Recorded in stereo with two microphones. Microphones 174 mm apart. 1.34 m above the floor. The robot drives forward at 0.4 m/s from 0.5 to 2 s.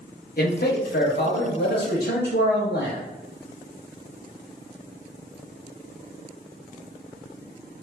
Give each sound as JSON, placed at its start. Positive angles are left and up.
{"t": 0.4, "sound": "a man speaking", "side_deg": 60, "distance_m": 0.7}